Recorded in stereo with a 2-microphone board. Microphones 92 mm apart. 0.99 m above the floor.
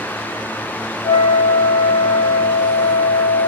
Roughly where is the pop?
I don't hear a pop.